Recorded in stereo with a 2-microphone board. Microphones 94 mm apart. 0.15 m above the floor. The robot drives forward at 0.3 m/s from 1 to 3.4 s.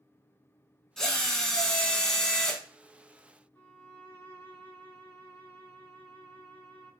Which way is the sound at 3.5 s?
20° left (ahead or behind).